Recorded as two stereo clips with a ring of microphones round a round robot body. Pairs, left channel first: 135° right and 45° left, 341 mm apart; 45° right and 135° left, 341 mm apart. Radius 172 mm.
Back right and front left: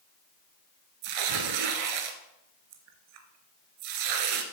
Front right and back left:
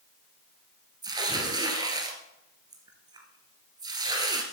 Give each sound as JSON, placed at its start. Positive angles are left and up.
{"t": 1.0, "sound": "tearing paper", "azimuth_deg": 55, "distance_m": 1.2}